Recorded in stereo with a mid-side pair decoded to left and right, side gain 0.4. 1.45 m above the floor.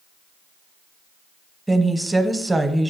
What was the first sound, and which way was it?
A woman speaking, 15° right.